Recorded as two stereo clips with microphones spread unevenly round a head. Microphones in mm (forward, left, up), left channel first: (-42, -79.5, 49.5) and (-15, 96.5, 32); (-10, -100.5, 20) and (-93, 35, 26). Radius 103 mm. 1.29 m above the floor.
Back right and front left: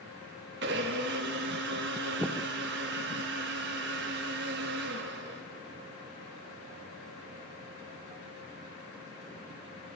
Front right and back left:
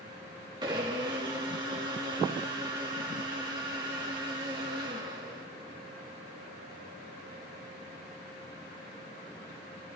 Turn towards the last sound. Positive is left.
turn(degrees=50)